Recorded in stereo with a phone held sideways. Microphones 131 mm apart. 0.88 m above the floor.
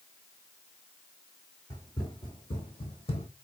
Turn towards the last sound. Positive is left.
turn(degrees=50)  # may be behind; listen again after turning